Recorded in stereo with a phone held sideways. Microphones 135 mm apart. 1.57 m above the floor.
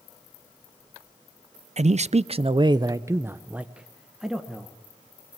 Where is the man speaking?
55° right (ahead or behind), 0.5 m; by 4.7 s centre (ahead or behind), 1.4 m.